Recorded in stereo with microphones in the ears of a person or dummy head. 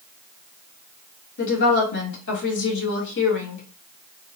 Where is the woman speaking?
60° left (ahead or behind), 1.8 m.